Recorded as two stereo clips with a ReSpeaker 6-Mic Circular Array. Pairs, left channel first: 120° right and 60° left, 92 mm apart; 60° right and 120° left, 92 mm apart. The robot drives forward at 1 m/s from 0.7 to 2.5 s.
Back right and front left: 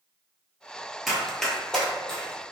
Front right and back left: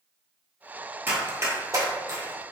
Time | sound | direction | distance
1.1 | running footsteps | 150° left | 1.4 m